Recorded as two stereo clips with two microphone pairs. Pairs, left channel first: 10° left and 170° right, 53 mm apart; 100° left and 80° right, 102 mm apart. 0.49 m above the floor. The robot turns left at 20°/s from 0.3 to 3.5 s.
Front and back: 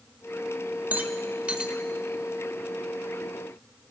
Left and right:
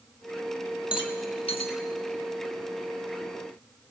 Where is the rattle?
135° left, 0.7 m; by 1.8 s 120° left, 0.7 m.